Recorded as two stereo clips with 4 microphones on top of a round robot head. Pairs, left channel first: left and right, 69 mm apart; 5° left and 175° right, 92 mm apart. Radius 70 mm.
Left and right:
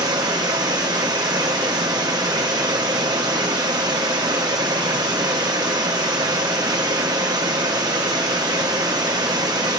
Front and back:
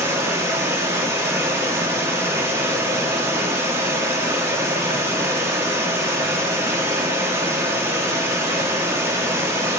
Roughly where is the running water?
Behind right.